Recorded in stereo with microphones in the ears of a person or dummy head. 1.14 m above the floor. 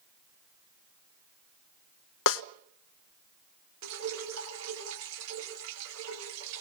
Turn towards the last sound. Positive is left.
turn(degrees=-80)